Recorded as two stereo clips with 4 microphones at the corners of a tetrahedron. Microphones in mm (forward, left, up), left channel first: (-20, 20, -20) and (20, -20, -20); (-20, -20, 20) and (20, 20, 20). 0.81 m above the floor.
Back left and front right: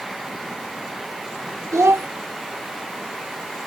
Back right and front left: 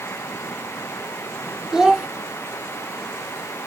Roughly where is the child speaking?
Ahead right.